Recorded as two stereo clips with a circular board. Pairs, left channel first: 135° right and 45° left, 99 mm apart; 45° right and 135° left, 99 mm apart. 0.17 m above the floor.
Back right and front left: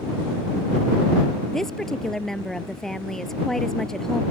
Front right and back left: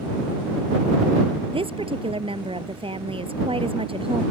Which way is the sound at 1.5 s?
140° left.